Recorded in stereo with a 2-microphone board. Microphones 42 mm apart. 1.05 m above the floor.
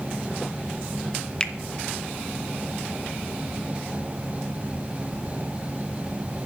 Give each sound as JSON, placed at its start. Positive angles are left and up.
{"t": 1.4, "sound": "a finger snap", "side_deg": 25, "distance_m": 0.6}